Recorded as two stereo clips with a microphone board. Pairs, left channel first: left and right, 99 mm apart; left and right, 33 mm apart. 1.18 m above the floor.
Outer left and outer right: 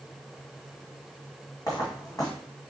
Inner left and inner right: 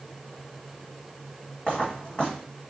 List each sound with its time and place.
1.7 s footsteps: 35° left (ahead or behind), 2.5 m